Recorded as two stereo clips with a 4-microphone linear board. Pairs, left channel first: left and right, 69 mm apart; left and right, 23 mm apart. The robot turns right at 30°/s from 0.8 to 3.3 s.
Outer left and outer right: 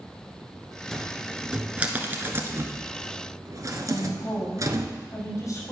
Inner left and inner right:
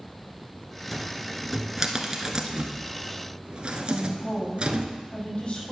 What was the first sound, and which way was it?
A cupboard door, 5° left (ahead or behind).